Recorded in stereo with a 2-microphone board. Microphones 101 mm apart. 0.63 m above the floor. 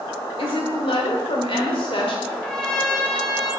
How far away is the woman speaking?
About 1.9 m.